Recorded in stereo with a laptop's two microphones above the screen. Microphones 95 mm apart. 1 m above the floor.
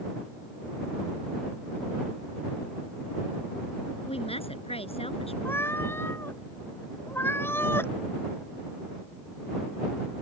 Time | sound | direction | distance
4.1 | a woman speaking | 85° left | ?
5.5 | a cat meowing | 25° left (ahead or behind) | ?